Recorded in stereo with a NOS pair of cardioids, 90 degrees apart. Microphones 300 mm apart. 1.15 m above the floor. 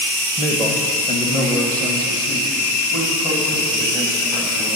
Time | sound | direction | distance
0.4 | a man speaking | 10° right | 0.7 m